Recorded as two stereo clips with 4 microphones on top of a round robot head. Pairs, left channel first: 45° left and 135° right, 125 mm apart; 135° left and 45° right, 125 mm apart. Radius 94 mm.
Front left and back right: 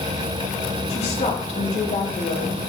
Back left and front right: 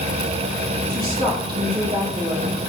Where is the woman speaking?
Straight ahead, 2.5 m.